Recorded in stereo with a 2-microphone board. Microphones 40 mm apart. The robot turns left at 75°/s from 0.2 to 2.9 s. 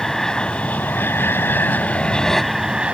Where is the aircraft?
170° left; by 2.9 s 30° right.